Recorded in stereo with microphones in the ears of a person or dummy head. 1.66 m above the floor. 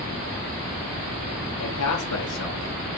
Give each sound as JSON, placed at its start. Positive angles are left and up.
{"t": 1.6, "sound": "a man speaking", "side_deg": 90, "distance_m": 4.5}